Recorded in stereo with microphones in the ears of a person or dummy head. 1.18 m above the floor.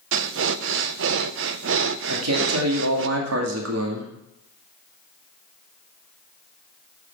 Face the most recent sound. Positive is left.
turn(degrees=-80)